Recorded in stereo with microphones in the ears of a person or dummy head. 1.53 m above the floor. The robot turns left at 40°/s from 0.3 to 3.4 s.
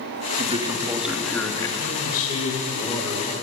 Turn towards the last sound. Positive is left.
turn(degrees=-5)